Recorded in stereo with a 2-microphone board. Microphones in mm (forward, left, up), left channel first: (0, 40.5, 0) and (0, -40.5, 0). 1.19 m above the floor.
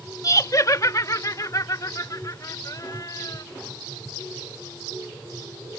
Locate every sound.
0.2 s laughter: 40° left (ahead or behind); by 3.4 s 45° left (ahead or behind)